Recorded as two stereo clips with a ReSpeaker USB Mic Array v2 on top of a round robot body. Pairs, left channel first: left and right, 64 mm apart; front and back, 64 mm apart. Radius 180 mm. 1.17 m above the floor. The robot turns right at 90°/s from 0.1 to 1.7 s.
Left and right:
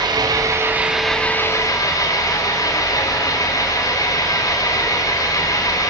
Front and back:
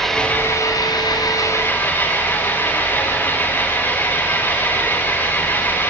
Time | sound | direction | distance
0.0 | an engine running | 85° right | 3.5 m